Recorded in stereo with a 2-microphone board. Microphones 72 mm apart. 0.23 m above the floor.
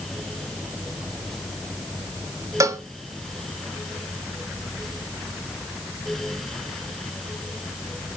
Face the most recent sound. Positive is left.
turn(degrees=-45)  # may be behind; listen again after turning